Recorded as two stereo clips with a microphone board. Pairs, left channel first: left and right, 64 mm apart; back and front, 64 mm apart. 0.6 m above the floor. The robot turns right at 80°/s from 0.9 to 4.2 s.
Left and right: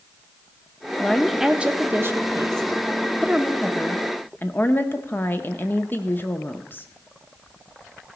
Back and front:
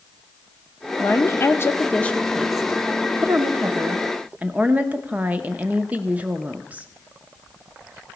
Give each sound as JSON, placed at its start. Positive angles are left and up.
{"t": 1.0, "sound": "a woman speaking", "azimuth_deg": 155, "distance_m": 0.7}